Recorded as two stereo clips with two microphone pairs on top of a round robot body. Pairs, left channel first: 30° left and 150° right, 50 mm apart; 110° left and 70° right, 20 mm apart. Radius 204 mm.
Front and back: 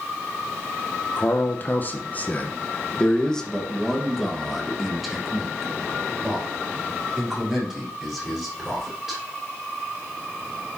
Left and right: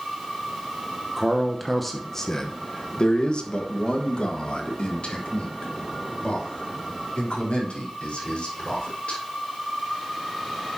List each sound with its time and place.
1.2 s a man speaking: 5° left, 1.1 m; by 9.2 s 125° left, 4.5 m